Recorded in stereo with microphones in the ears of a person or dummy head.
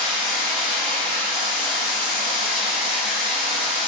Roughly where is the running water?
Left.